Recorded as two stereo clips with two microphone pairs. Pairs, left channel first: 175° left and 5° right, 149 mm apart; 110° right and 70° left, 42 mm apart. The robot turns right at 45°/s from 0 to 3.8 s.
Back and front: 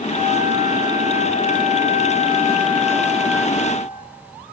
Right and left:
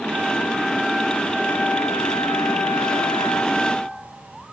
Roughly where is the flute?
Behind left.